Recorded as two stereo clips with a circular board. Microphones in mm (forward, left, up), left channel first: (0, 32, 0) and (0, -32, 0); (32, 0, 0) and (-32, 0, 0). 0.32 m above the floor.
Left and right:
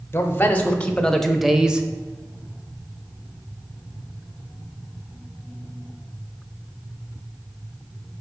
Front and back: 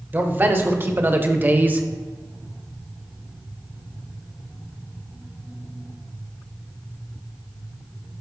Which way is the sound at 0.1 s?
135° left.